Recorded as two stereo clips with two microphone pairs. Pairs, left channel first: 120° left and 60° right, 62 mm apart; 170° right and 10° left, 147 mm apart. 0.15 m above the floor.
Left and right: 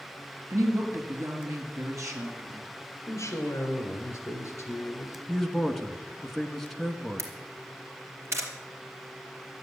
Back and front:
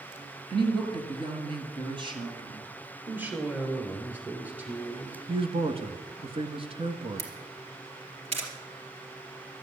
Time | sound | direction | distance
0.5 | a woman speaking | 40° right | 3 m
3.1 | a woman speaking | 85° left | 3.5 m
5.3 | a man speaking | 35° left | 1.5 m
7.2 | a camera shutter | 25° right | 3 m